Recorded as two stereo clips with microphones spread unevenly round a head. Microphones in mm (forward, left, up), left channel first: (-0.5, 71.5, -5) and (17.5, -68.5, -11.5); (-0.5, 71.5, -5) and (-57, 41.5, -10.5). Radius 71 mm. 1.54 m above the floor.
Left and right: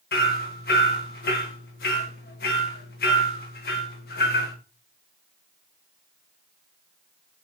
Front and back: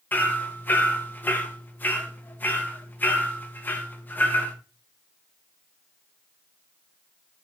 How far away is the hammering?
About 1.9 m.